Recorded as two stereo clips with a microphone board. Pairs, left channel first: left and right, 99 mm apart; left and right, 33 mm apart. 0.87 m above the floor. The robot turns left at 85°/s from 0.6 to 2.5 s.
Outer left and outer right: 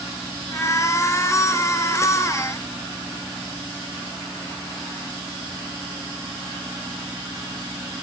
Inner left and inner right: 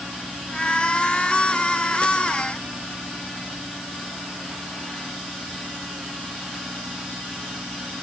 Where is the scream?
No scream in this recording.